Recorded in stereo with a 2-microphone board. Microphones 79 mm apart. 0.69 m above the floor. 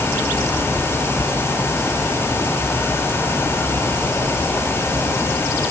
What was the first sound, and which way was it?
Only background noise.